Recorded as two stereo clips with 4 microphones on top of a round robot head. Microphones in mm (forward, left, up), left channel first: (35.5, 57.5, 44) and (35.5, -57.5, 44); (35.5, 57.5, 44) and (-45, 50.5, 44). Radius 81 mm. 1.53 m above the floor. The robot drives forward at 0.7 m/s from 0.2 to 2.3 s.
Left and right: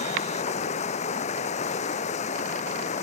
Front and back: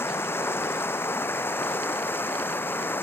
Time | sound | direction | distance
0.0 | running water | 65° left | ?